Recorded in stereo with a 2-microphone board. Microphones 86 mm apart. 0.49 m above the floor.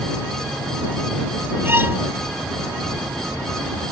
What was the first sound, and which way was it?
A violin, 25° right (ahead or behind).